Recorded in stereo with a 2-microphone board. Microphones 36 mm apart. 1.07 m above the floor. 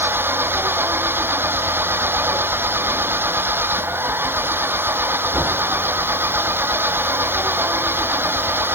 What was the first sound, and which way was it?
An engine running, 90° right.